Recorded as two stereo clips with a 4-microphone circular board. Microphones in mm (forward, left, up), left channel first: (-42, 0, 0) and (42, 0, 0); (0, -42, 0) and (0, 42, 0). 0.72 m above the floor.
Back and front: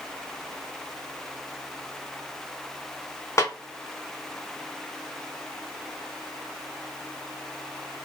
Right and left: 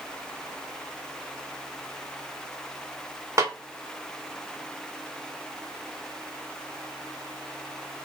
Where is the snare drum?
135° left, 0.6 m.